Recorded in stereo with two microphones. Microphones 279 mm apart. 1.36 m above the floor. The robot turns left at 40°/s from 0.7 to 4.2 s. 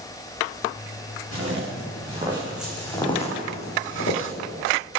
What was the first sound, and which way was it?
Footsteps, 55° right (ahead or behind).